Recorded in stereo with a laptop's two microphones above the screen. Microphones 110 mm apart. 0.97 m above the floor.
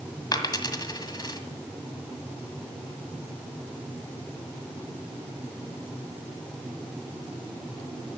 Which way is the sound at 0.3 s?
40° left (ahead or behind).